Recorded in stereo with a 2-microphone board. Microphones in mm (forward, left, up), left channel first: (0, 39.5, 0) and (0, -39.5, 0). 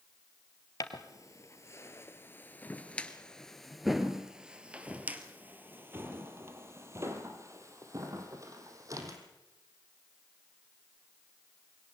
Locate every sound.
0.8 s footsteps: 50° left (ahead or behind), 1.9 m; by 9.2 s 50° right (ahead or behind), 3.5 m